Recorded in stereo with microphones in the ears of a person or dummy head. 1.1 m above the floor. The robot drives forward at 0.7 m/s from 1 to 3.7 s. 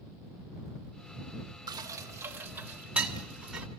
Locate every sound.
1.7 s dishes clattering: 25° right (ahead or behind), 0.6 m; by 3.7 s 5° right (ahead or behind), 2.0 m